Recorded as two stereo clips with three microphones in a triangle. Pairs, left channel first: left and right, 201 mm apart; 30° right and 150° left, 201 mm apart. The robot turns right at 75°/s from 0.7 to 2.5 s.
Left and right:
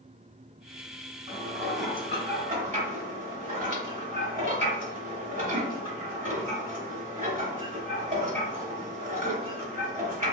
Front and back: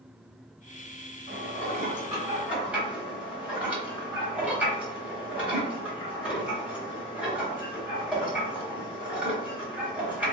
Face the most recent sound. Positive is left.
turn(degrees=-125)